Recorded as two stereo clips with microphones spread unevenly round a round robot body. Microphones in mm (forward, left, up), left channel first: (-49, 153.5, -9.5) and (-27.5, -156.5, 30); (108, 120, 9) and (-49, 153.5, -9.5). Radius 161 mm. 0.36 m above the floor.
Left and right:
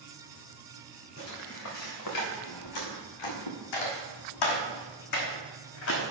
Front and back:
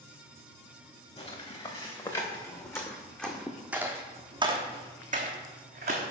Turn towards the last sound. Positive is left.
turn(degrees=145)